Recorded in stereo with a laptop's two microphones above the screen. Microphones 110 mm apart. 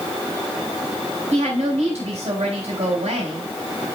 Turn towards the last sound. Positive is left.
turn(degrees=-80)